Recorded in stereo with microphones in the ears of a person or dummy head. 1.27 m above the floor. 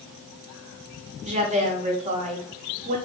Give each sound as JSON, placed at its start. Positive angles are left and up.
{"t": 1.2, "sound": "a woman speaking", "side_deg": -40, "distance_m": 1.0}